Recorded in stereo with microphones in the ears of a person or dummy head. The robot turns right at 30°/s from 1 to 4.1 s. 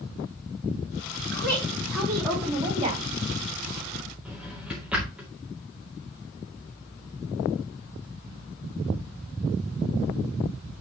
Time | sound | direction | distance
1.3 | a woman speaking | 155° left | 4 m
4.2 | a drawer | 5° right (ahead or behind) | 2 m